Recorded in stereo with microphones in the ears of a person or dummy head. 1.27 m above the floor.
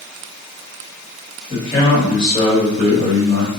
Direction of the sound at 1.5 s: 30° left (ahead or behind).